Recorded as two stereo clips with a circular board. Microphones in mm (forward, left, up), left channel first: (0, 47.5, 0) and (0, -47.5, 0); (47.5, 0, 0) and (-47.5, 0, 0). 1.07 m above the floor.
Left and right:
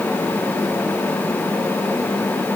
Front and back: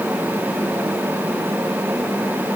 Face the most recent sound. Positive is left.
No sound to turn to.